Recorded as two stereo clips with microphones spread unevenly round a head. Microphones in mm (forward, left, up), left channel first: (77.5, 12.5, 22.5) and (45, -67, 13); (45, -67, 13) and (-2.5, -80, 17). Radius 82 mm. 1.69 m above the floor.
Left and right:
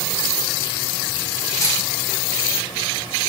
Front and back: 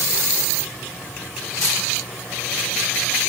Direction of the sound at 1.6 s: 20° left.